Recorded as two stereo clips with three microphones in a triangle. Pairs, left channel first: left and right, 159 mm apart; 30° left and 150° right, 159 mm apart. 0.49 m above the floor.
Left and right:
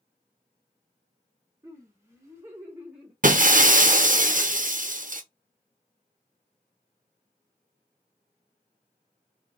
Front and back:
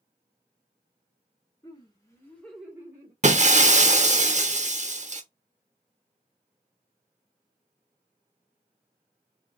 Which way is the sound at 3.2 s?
115° right.